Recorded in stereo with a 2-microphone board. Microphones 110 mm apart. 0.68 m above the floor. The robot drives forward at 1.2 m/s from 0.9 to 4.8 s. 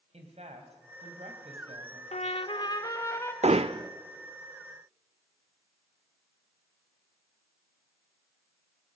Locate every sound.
0.1 s a woman speaking: 75° right (ahead or behind), 4 m; by 2.0 s 80° right, 4 m
2.1 s a trumpet: 80° left, 0.7 m; by 3.3 s 25° left (ahead or behind), 1.7 m
3.4 s hammering: 75° right (ahead or behind), 0.5 m; by 3.9 s 40° right (ahead or behind), 0.8 m